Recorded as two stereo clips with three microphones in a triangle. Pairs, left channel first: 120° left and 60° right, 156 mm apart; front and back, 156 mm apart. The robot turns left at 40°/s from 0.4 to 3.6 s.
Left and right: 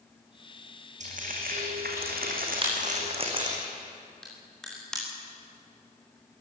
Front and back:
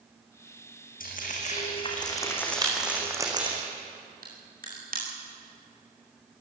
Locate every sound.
1.0 s frying: 20° right, 4.5 m; by 3.6 s 125° right, 4.5 m
2.6 s a crack: 115° right, 8.5 m; by 5.0 s 155° right, 8.5 m